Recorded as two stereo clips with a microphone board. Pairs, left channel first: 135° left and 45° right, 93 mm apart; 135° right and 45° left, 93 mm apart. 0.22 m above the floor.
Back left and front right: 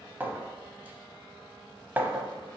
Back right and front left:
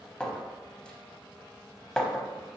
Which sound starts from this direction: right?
A clink, at 0.2 s.